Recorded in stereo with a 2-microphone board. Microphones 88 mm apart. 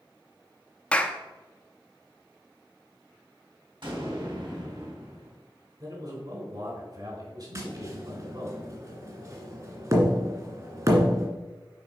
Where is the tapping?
40° right (ahead or behind), 2 m.